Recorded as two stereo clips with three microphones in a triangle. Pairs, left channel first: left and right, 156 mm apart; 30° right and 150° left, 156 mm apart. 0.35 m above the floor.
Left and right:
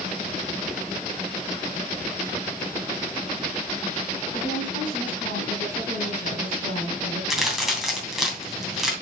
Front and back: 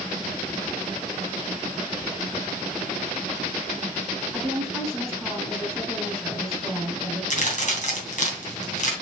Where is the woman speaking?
60° left, 3.5 m.